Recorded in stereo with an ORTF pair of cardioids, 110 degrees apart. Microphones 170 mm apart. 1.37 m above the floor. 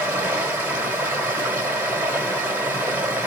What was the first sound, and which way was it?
Running water, 10° right.